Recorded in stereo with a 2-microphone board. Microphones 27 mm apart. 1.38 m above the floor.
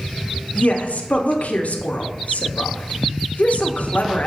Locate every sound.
0.6 s a woman speaking: 70° left (ahead or behind), 0.5 m